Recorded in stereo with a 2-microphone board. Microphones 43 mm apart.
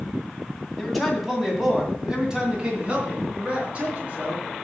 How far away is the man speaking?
About 2.5 m.